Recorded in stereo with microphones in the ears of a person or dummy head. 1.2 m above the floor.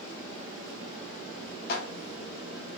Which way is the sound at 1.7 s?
50° left (ahead or behind).